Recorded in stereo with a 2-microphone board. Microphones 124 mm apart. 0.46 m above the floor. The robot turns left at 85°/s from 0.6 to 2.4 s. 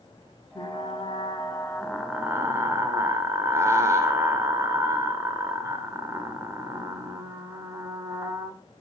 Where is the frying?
120° left, 1.8 m; by 8.6 s 35° right, 1.8 m.